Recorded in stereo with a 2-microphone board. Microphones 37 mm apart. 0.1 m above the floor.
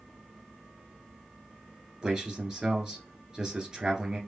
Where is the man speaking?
25° right (ahead or behind), 1.5 m.